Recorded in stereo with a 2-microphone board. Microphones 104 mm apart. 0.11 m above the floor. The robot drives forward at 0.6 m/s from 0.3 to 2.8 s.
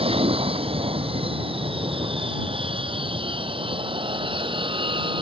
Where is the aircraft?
65° right (ahead or behind); by 5.2 s 55° right (ahead or behind).